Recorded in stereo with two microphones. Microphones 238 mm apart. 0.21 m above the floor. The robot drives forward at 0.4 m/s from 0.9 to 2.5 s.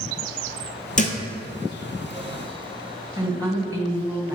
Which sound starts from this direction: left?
A thud, at 1.0 s.